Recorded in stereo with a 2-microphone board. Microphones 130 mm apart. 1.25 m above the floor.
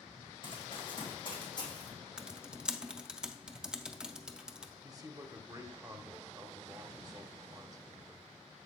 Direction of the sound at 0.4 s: 40° left (ahead or behind).